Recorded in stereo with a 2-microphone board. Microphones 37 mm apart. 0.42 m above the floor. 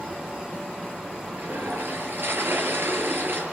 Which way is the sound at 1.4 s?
65° right (ahead or behind).